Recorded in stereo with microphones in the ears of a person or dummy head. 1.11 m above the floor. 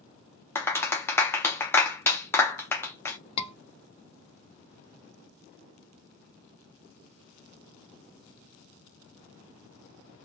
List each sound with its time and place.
0.6 s a clap: 10° left (ahead or behind), 0.6 m
3.4 s a scream: 30° left (ahead or behind), 0.7 m